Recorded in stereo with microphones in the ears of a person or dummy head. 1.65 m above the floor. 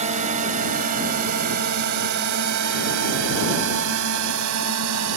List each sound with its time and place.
0.0 s a drone: 40° right (ahead or behind); by 5.2 s 85° right